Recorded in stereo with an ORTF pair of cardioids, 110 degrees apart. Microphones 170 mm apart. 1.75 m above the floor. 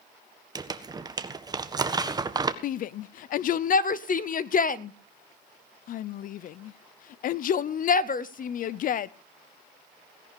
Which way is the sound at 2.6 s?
55° left.